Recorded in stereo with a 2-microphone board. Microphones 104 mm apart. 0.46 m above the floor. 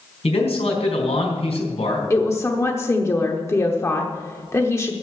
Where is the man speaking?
75° left (ahead or behind), 4 m.